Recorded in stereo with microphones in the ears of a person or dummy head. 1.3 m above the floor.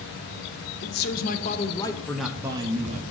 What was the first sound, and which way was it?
A man speaking, 55° left (ahead or behind).